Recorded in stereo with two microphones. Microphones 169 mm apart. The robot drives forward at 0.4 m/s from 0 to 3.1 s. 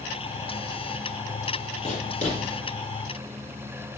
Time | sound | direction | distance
1.8 | writing | 50° left (ahead or behind) | 4 m